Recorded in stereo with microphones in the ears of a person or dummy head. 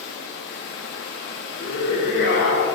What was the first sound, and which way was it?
Running water, 60° left (ahead or behind).